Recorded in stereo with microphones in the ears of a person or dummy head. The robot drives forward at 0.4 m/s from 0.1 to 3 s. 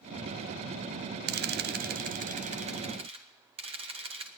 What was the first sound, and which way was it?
A camera shutter, 45° right (ahead or behind).